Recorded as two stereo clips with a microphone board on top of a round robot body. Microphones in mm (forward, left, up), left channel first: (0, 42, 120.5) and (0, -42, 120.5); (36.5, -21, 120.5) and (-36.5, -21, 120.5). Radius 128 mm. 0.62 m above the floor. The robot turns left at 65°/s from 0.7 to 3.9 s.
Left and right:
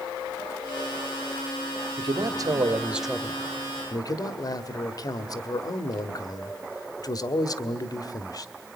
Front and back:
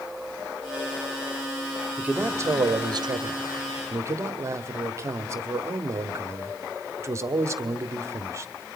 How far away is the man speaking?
About 1.5 m.